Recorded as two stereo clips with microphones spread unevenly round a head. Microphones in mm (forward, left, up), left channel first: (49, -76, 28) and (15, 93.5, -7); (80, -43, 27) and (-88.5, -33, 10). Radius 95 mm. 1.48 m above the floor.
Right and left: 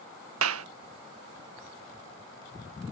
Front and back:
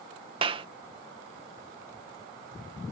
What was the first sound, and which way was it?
A clap, 110° left.